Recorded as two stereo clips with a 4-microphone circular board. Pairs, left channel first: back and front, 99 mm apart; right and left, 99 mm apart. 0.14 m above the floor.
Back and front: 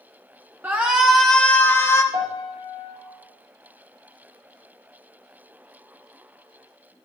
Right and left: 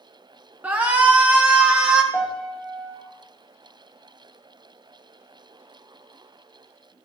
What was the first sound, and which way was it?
A shout, 45° left.